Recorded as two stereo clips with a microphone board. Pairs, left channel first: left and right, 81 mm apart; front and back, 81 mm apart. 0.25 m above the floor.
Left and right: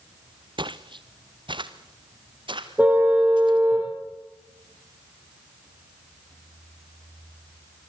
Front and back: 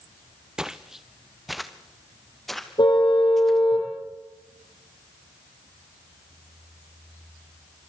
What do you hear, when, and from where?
0.6 s footsteps: 100° right, 1.0 m; by 3.6 s 85° right, 3.5 m
2.8 s a car horn: 20° right, 6 m